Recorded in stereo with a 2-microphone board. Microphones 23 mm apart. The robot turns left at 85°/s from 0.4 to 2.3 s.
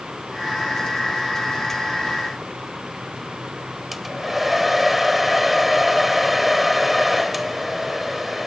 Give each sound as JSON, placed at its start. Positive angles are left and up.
{"t": 3.9, "sound": "a hair dryer", "side_deg": -5, "distance_m": 0.6}